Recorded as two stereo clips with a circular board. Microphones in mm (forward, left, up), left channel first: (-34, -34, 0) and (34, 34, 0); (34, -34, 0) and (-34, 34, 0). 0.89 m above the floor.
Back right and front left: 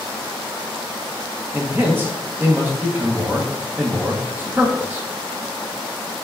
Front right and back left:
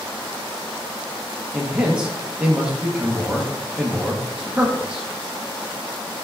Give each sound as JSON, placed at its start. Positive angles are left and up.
{"t": 1.5, "sound": "a man speaking", "azimuth_deg": 70, "distance_m": 0.6}